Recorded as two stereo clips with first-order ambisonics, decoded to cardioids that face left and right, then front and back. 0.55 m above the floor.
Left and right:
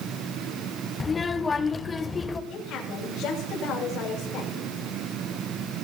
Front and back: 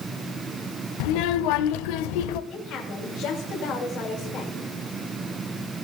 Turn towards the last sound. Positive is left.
turn(degrees=45)